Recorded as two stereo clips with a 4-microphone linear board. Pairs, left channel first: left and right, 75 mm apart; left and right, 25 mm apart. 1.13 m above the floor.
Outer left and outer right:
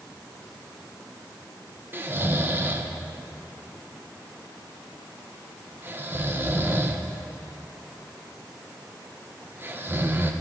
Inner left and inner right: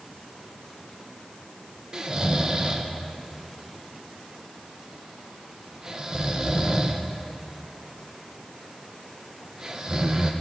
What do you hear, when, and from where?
1.9 s snoring: 30° right (ahead or behind), 0.5 m